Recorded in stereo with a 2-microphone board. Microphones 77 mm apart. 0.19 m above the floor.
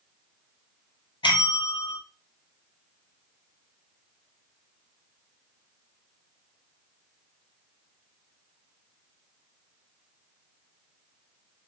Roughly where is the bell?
Left.